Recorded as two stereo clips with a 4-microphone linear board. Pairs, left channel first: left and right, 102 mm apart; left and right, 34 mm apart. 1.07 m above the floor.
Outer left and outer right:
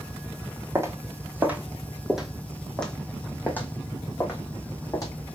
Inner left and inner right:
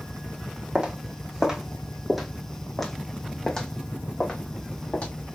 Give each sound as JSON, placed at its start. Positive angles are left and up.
{"t": 0.8, "sound": "footsteps", "side_deg": -25, "distance_m": 1.9}